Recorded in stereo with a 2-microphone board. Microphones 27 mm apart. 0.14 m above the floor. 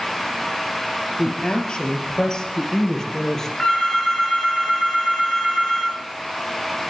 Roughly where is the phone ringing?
Centre.